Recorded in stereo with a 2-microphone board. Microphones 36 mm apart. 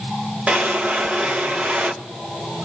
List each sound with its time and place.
0.5 s a drawer: 30° right (ahead or behind), 0.6 m